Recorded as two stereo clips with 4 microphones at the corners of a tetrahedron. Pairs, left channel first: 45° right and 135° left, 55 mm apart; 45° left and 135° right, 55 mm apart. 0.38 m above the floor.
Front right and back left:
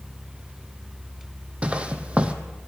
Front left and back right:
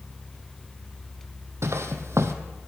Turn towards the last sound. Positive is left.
turn(degrees=-160)